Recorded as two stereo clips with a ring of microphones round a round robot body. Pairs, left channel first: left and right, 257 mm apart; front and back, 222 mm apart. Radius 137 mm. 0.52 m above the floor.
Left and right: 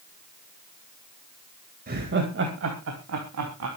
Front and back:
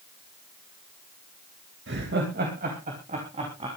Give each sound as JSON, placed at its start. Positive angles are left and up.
{"t": 1.9, "sound": "laughter", "azimuth_deg": -145, "distance_m": 2.5}